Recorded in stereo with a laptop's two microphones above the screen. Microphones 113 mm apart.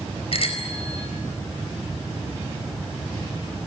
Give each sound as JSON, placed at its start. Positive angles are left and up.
{"t": 0.3, "sound": "a bicycle bell", "side_deg": 60, "distance_m": 4.0}